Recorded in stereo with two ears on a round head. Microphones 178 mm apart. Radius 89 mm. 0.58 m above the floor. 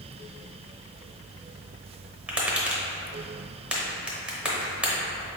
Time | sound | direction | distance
2.3 | tapping | 5° right (ahead or behind) | 0.8 m